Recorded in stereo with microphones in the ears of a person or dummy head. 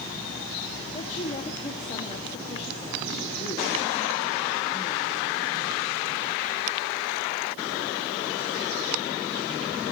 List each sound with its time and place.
0.9 s a woman speaking: 35° left (ahead or behind), 1.6 m